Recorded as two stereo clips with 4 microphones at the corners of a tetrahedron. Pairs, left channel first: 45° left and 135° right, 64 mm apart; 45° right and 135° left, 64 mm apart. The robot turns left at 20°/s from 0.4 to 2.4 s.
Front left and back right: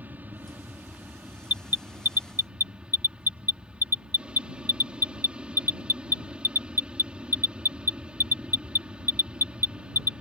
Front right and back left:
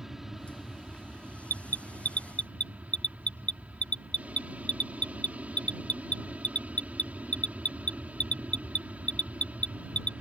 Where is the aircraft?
150° right; by 10.2 s 170° left.